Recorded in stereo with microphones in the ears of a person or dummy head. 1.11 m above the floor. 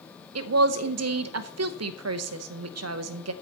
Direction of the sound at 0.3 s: 75° right (ahead or behind).